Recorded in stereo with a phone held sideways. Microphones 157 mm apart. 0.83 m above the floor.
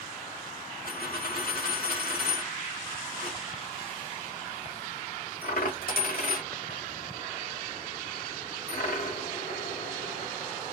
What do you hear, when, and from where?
0.8 s a dropped coin: 70° left (ahead or behind), 1.2 m